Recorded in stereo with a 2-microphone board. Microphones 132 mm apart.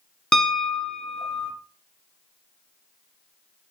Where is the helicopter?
No helicopter in this recording.